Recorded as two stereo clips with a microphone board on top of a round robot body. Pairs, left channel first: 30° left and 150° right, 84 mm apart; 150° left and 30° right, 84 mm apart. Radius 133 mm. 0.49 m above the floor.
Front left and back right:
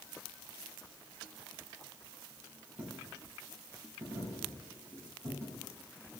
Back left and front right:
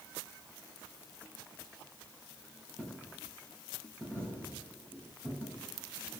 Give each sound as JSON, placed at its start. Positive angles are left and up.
{"t": 2.8, "sound": "a dropped coin", "azimuth_deg": -100, "distance_m": 7.0}